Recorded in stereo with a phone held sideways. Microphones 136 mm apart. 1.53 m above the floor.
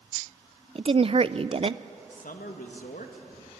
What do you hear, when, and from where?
0.8 s a woman speaking: 45° right (ahead or behind), 0.5 m
2.1 s a man speaking: 80° left, 2.0 m